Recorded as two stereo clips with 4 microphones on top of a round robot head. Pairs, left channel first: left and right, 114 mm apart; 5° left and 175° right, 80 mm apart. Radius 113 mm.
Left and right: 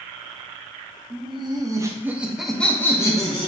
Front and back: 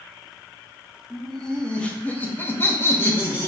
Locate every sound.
1.1 s laughter: 80° right, 1.4 m; by 3.5 s 55° left, 1.3 m